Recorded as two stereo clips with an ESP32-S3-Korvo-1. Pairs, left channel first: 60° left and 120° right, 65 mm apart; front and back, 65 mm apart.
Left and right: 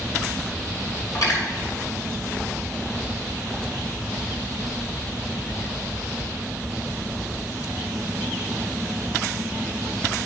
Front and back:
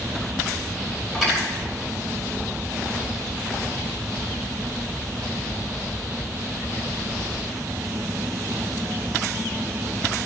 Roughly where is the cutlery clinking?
Left.